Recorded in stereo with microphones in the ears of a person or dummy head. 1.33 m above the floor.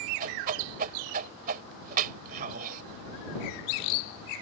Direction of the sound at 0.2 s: 50° right (ahead or behind).